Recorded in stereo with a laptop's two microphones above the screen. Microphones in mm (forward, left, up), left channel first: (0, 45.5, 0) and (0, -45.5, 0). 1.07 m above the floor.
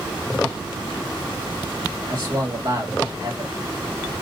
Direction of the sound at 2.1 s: 55° right (ahead or behind).